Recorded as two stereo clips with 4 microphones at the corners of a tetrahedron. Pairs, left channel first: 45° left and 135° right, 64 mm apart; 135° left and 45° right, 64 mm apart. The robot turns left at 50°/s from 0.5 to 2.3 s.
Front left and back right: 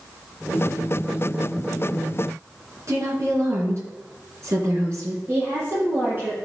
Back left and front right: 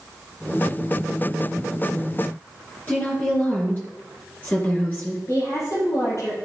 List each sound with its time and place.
2.9 s a woman speaking: 165° right, 3.5 m
5.3 s a woman speaking: 175° left, 5 m